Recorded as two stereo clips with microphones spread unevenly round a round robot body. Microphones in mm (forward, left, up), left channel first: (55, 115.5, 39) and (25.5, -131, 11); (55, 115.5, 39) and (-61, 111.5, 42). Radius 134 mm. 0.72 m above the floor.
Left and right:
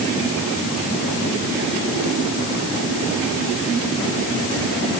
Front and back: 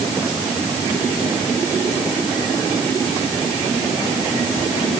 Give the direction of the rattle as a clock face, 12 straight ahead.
I don't hear a rattle.